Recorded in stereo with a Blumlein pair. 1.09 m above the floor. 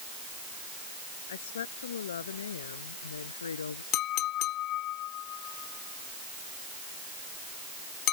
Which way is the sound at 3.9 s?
35° left.